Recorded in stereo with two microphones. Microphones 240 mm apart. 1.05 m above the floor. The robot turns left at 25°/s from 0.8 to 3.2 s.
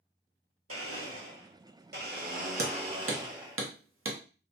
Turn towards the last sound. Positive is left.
turn(degrees=-65)  # may be behind; listen again after turning